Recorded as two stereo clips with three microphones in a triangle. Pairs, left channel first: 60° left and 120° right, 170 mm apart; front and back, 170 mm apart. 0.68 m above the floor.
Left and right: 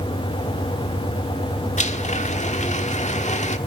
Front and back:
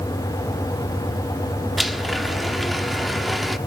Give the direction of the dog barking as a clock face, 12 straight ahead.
No dog barking in this recording.